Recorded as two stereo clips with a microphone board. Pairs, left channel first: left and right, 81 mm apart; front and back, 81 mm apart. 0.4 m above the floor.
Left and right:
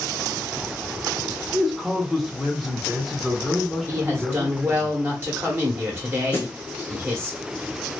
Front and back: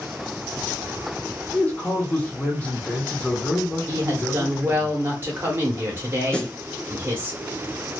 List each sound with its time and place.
1.5 s a man speaking: 5° left, 0.8 m
3.9 s a woman speaking: 135° right, 1.0 m
6.3 s a snare drum: 65° left, 0.8 m